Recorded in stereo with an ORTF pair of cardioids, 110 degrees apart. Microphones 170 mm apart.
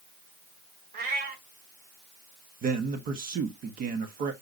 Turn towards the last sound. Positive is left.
turn(degrees=-55)